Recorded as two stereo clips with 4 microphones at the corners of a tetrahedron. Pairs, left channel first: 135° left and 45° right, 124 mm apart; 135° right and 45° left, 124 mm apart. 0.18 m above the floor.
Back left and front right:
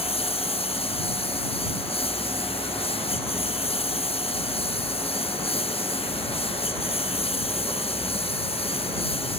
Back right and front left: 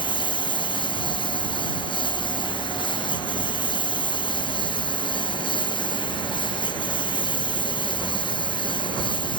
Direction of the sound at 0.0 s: 175° left.